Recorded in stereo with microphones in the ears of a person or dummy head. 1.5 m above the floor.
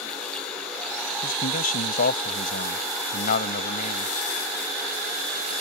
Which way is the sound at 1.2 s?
50° left (ahead or behind).